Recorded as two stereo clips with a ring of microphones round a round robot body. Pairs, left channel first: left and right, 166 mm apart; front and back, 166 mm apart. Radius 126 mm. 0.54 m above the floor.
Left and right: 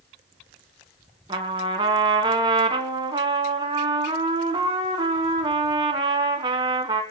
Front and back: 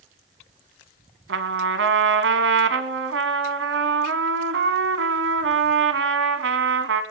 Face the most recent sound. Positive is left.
turn(degrees=-165)